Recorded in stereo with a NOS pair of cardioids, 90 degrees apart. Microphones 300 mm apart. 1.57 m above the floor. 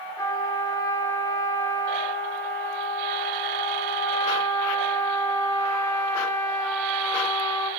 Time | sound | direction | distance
0.2 | a trumpet | 10° left | 3.5 m